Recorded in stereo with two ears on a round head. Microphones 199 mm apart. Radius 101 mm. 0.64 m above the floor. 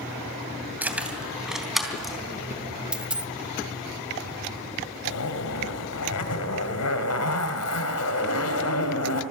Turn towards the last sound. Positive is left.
turn(degrees=80)